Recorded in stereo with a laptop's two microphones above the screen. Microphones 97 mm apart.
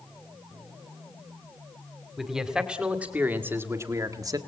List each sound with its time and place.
2.2 s a man speaking: 5° right (ahead or behind), 2.5 m; by 4.4 s 40° right (ahead or behind), 1.7 m